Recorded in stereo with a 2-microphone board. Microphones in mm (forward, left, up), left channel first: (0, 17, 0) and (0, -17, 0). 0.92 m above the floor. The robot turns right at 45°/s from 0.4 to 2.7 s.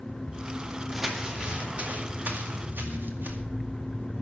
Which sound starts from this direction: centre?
Crumpling, at 0.9 s.